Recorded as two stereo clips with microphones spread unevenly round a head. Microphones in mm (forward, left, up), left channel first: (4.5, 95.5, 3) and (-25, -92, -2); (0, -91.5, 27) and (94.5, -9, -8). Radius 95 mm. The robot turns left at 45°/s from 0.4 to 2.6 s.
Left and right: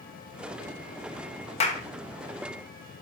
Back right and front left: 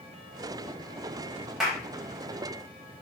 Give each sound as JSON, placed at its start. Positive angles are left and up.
{"t": 1.6, "sound": "a clap", "azimuth_deg": 135, "distance_m": 1.0}